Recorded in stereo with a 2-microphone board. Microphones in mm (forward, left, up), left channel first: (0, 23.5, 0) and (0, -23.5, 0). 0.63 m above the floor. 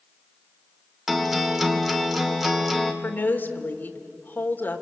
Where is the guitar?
5° right (ahead or behind), 1.8 m.